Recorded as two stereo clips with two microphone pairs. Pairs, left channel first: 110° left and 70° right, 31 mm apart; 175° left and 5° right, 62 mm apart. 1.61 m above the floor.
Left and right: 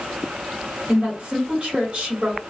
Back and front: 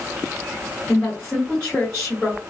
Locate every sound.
0.9 s a woman speaking: 125° right, 2 m